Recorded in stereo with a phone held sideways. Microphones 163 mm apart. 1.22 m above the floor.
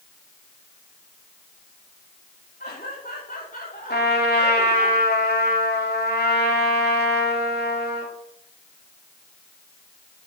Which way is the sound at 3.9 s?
85° left.